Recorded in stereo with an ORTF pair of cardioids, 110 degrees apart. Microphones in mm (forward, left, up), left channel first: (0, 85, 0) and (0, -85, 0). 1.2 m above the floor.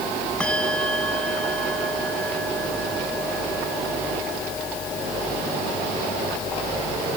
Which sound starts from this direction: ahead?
A bell, at 0.4 s.